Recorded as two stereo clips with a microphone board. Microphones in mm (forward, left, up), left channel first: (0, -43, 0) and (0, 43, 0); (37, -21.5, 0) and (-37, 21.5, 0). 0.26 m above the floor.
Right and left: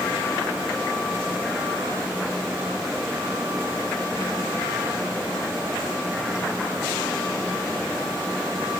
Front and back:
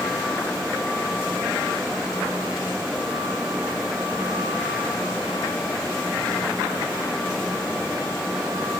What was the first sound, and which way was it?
Only background noise.